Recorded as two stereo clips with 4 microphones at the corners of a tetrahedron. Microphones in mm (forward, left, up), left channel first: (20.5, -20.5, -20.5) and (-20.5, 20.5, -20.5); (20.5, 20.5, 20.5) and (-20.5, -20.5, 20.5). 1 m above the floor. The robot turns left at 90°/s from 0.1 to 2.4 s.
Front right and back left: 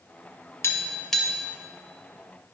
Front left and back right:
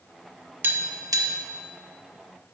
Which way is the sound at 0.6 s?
85° right.